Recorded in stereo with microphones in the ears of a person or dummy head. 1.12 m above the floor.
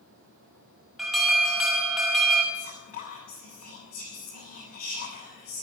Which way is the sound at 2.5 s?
35° left (ahead or behind).